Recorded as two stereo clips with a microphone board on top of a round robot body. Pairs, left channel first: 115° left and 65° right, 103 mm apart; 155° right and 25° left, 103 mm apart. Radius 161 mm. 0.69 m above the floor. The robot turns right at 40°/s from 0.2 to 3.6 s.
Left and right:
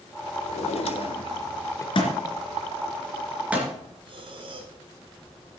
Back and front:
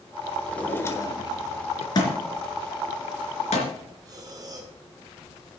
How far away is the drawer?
About 1.3 m.